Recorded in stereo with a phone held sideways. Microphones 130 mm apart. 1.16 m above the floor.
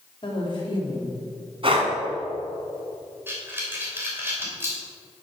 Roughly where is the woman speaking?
Left.